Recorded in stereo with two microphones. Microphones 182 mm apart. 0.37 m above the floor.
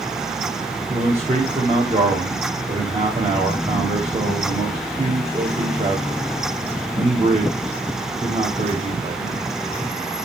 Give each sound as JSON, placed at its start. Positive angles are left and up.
{"t": 0.9, "sound": "a man speaking", "side_deg": -35, "distance_m": 1.9}